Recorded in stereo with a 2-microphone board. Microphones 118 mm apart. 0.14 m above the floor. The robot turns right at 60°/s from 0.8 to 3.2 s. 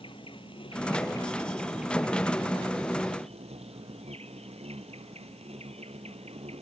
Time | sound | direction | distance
0.0 | an insect | 125° left | ?